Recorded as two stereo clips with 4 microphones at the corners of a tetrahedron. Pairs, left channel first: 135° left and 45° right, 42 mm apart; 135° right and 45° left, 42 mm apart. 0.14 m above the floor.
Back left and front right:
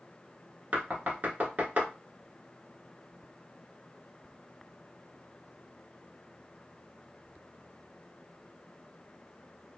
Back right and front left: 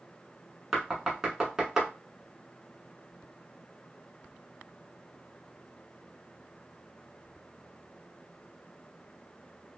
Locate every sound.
0.7 s knocking: 25° right, 1.0 m